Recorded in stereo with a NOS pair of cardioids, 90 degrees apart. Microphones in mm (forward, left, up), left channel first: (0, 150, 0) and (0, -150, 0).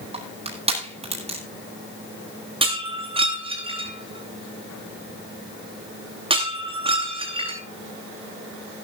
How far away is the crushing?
About 9.5 m.